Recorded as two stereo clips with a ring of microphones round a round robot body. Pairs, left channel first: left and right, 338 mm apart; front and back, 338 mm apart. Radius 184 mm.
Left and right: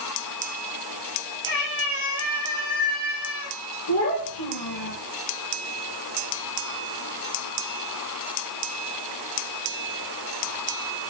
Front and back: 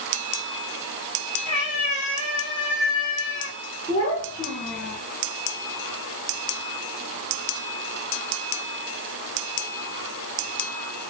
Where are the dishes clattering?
I don't hear dishes clattering.